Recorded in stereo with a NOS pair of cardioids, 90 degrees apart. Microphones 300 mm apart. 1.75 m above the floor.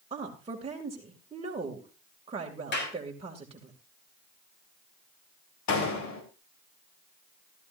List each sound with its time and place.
0.1 s a woman speaking: 20° right, 2.5 m
2.7 s a clap: 40° left, 5.5 m
5.7 s a door slam: 65° left, 4 m